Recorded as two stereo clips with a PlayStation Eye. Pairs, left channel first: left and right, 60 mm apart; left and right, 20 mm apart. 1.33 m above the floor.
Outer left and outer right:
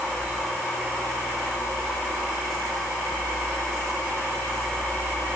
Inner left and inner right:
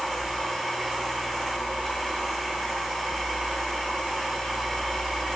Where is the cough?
No cough in this recording.